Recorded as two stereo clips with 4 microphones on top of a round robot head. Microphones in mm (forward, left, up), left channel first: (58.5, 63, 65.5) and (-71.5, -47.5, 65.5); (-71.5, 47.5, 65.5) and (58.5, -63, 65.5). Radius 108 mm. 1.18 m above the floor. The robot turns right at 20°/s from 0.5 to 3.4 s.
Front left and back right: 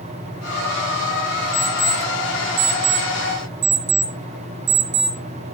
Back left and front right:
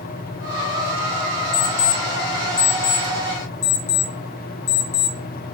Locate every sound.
1.5 s an alarm clock: 145° left, 0.7 m; by 5.5 s 175° right, 0.7 m